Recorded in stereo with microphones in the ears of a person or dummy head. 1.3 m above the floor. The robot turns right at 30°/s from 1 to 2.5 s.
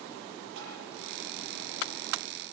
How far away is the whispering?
I don't hear whispering.